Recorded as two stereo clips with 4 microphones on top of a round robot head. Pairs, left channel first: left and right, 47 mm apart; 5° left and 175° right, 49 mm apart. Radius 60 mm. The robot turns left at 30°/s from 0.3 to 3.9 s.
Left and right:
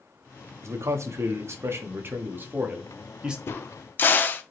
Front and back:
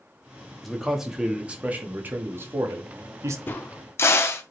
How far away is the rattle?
I don't hear a rattle.